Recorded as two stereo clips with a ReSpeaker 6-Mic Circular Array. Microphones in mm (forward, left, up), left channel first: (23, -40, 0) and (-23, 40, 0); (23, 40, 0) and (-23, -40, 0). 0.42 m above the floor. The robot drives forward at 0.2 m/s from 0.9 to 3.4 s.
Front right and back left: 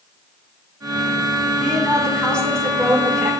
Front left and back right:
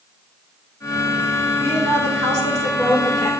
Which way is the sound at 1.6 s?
130° right.